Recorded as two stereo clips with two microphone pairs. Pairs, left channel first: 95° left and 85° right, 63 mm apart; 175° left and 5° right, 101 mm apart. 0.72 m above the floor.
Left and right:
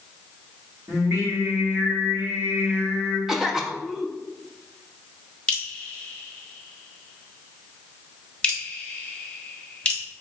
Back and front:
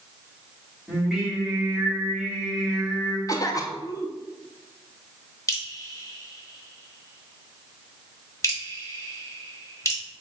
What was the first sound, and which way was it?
Singing, 95° right.